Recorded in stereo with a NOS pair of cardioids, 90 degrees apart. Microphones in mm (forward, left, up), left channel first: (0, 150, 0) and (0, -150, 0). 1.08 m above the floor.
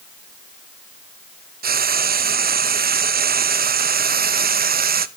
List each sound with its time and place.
1.6 s frying: 30° right, 0.7 m